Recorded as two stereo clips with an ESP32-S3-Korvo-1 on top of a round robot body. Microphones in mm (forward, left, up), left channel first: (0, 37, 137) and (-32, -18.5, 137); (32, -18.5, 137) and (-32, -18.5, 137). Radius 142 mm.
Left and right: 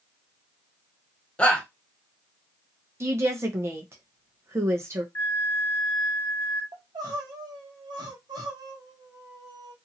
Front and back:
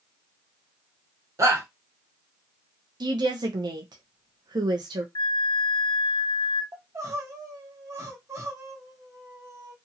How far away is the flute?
About 0.6 m.